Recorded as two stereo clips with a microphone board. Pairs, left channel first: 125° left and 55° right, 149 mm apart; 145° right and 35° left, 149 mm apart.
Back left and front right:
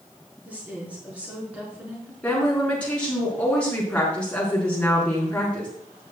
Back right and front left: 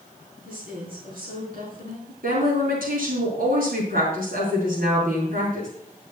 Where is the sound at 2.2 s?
40° left, 5 m.